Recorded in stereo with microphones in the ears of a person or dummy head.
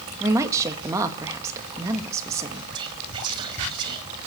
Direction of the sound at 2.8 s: 30° right (ahead or behind).